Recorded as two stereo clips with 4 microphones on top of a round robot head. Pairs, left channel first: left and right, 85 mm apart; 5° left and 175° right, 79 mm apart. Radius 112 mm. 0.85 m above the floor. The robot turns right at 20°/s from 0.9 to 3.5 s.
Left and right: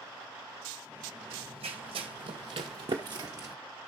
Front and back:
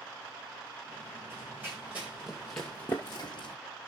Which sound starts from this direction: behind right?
Running footsteps, at 1.3 s.